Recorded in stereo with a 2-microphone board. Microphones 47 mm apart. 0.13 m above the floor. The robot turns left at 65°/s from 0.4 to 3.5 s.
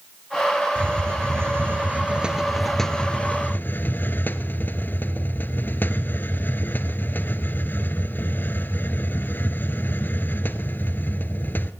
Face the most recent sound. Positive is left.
turn(degrees=125)